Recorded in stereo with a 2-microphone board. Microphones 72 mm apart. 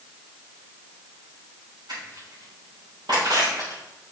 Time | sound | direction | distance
1.9 | crushing | 70° right (ahead or behind) | 4 m